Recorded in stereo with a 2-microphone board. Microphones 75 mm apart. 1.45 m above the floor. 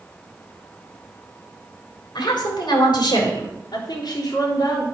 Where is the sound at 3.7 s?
80° left, 3.5 m.